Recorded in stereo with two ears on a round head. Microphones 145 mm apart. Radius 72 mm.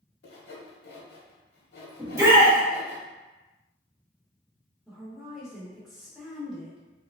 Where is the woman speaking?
Centre (ahead or behind), 0.7 m.